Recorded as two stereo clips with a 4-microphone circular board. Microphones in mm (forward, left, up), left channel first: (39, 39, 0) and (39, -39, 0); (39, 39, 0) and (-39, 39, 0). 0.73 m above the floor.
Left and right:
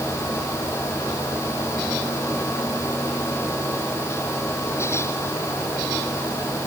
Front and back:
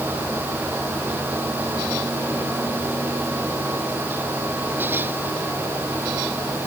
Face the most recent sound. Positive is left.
No sound to turn to.